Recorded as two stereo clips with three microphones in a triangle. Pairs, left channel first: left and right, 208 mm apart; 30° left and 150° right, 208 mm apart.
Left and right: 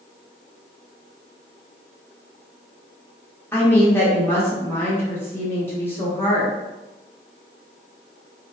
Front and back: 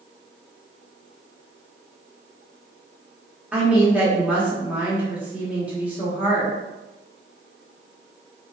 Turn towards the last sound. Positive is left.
turn(degrees=145)